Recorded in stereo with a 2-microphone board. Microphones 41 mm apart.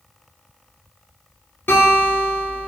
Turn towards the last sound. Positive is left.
turn(degrees=60)  # may be behind; listen again after turning